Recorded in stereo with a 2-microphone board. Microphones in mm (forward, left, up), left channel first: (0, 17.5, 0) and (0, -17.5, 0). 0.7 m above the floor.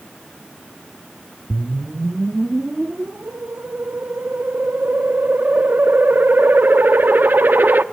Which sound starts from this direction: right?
A whoosh, at 1.5 s.